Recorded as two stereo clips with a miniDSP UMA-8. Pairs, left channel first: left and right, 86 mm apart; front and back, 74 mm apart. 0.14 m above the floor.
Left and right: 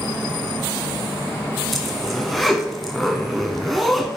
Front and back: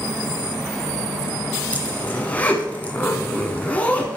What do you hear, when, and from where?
1.7 s a zipper: 5° left, 1.2 m